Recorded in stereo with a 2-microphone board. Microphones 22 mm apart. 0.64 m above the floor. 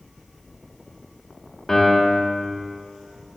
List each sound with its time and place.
1.7 s a piano: 20° left (ahead or behind), 1.4 m